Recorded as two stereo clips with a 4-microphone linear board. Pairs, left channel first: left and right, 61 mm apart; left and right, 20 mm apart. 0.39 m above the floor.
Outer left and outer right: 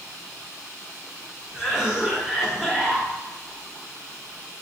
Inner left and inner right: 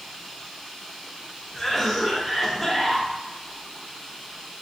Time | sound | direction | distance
1.5 | a cough | 10° right (ahead or behind) | 0.9 m